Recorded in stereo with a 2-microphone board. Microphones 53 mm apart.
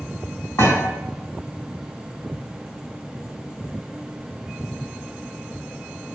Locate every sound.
0.6 s a thud: 70° left (ahead or behind), 3.5 m